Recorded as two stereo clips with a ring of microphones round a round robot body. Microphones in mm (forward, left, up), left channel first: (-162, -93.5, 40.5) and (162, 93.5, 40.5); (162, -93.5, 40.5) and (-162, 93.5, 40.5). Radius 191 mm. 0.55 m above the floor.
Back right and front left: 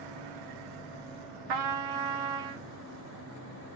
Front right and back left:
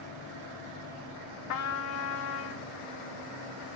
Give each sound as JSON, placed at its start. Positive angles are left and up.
{"t": 1.5, "sound": "a trumpet", "azimuth_deg": 15, "distance_m": 0.7}